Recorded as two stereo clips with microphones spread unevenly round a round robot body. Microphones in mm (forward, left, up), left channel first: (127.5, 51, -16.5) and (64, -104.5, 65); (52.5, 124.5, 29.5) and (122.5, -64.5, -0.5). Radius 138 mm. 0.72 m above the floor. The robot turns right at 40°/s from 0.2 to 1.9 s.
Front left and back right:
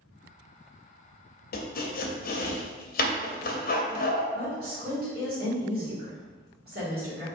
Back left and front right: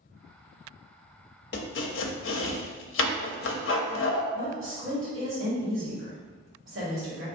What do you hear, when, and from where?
1.5 s chopping: 70° left, 0.5 m; by 4.2 s 85° left, 0.5 m
4.3 s a woman speaking: 75° right, 1.8 m